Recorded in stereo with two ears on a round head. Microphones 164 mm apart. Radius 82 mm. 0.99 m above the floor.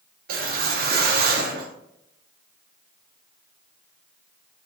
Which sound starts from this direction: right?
A whoosh, at 0.3 s.